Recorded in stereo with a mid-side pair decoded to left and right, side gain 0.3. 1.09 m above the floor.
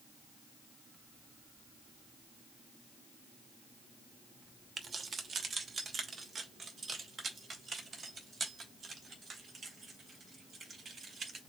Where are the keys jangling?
65° right, 0.8 m; by 11.4 s 60° right, 4 m.